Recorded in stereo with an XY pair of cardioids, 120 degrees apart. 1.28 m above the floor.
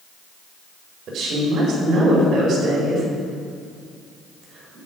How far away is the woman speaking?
About 4.5 m.